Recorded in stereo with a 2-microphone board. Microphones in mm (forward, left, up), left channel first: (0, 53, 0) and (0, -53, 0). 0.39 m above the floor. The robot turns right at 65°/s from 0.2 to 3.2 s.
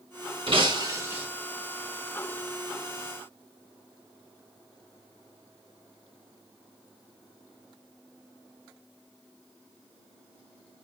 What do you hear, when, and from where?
0.5 s breaking glass: 65° right, 1.9 m; by 1.3 s 15° right, 1.9 m